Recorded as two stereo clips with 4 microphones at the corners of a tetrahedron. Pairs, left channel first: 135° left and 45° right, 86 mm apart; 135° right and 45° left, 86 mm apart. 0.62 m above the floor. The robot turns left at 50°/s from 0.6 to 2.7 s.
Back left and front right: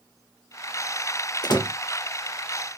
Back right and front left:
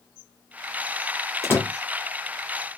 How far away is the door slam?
About 1.0 m.